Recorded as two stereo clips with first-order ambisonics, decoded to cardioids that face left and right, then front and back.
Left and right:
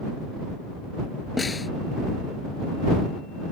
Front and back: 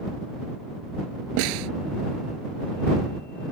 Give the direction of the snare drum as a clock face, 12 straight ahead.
6 o'clock.